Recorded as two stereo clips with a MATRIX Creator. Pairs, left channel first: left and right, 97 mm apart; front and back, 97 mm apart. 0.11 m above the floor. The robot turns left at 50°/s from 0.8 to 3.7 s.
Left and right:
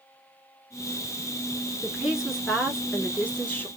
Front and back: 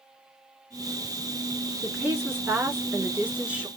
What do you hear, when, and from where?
1.8 s a woman speaking: 150° right, 1.2 m; by 3.7 s 120° left, 1.2 m